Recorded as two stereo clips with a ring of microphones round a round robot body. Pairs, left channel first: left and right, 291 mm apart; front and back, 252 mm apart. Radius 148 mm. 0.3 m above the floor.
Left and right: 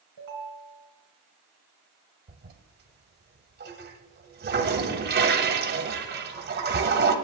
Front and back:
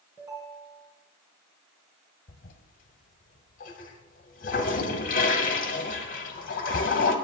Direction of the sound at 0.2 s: 100° right.